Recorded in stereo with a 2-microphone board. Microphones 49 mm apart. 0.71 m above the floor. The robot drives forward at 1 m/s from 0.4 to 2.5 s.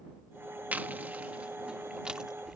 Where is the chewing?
35° right (ahead or behind); by 2.6 s 15° right (ahead or behind).